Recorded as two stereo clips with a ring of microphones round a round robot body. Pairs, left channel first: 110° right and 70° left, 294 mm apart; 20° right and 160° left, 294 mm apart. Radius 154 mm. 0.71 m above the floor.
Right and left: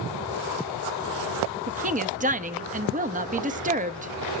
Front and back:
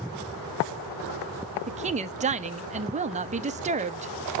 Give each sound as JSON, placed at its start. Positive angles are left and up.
{"t": 1.7, "sound": "a woman speaking", "azimuth_deg": 110, "distance_m": 0.8}